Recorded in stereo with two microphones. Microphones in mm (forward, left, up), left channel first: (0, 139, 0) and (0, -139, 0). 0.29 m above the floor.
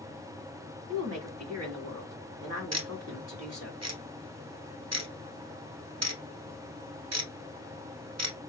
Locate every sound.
0.9 s a woman speaking: 60° right (ahead or behind), 2.5 m
2.7 s ticking: 65° right (ahead or behind), 0.8 m